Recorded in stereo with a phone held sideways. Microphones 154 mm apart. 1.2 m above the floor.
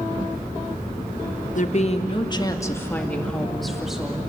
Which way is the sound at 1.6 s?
55° left (ahead or behind).